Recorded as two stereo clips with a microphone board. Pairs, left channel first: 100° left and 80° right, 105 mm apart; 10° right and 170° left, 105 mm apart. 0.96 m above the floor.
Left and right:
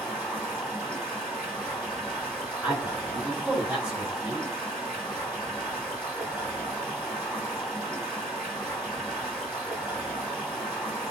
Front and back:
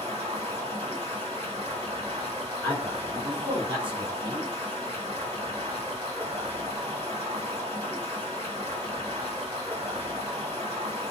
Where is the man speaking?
160° right, 1.6 m.